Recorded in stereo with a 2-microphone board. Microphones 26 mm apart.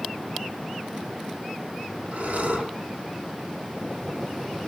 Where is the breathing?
70° right (ahead or behind), 6 m.